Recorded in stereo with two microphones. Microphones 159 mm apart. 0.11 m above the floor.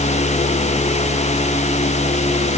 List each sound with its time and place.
Only background noise.